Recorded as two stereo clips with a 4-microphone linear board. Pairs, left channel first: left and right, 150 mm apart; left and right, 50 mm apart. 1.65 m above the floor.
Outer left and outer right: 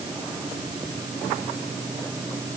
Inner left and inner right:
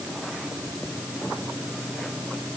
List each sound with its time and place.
Only background noise.